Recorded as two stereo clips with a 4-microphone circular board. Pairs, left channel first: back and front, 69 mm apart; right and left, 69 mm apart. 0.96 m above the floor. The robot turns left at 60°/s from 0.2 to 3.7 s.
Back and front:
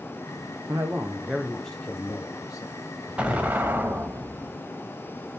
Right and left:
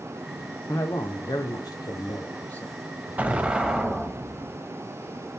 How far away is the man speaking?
About 0.6 m.